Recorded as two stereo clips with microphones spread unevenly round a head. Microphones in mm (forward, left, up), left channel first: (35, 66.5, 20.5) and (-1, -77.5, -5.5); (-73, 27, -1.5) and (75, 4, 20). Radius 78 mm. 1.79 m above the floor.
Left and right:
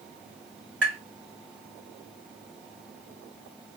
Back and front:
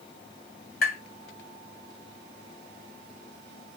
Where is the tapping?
150° left, 2.5 m.